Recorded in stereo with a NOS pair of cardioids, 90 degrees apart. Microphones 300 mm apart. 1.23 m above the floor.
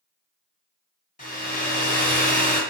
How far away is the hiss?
No hiss in this recording.